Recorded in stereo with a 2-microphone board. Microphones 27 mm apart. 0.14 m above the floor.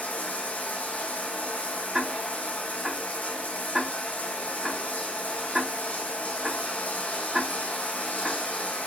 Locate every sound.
0.0 s running water: 75° left (ahead or behind), 3 m
1.9 s ticking: 10° right (ahead or behind), 4.5 m